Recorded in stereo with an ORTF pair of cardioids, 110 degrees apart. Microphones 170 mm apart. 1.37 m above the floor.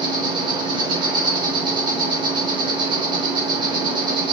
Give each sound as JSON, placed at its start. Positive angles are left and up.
{"t": 0.0, "sound": "an insect", "azimuth_deg": -30, "distance_m": 3.5}